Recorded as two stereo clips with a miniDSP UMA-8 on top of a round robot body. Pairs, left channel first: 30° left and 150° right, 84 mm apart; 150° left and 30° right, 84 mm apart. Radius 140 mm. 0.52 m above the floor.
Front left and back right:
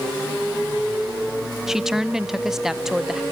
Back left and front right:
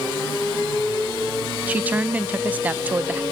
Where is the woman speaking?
75° right, 0.9 m.